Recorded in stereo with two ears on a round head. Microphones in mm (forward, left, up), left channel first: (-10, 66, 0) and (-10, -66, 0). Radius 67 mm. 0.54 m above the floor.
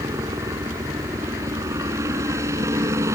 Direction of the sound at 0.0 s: 20° right (ahead or behind).